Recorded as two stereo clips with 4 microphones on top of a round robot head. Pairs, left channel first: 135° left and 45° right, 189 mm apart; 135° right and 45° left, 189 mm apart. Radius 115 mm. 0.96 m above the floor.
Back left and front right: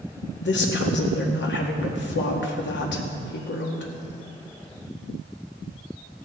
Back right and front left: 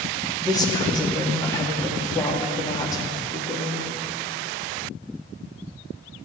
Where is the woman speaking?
155° left, 2 m.